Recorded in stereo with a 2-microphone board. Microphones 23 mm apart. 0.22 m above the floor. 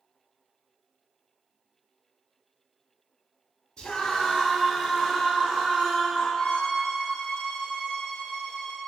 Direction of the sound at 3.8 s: 30° left (ahead or behind).